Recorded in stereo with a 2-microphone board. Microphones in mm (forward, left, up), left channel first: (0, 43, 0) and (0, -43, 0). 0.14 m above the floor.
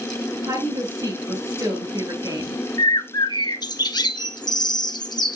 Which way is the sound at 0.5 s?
40° right (ahead or behind).